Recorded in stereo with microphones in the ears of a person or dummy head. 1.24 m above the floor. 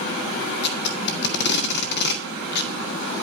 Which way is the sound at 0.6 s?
70° left (ahead or behind).